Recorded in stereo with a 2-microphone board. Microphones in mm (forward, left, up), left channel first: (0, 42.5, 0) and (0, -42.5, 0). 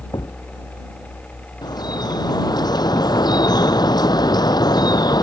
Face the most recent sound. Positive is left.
turn(degrees=55)  # may be behind; listen again after turning